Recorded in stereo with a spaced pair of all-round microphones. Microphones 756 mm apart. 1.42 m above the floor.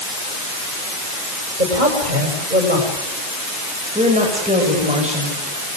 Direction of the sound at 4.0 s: 10° right (ahead or behind).